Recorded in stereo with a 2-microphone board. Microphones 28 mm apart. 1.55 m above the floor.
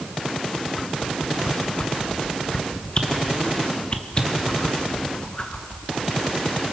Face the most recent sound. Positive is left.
turn(degrees=35)  # may be behind; listen again after turning